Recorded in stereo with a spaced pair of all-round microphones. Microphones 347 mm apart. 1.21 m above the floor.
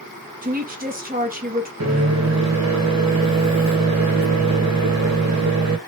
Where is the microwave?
50° right (ahead or behind), 1.4 m.